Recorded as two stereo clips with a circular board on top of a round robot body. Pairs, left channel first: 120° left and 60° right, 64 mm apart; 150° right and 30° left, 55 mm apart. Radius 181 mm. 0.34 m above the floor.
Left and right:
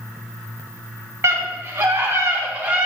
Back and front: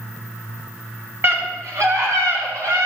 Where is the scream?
10° right, 4 m; by 2.9 s 15° left, 4.5 m.